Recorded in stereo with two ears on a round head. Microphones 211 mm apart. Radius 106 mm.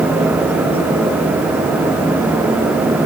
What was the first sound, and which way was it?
Only background noise.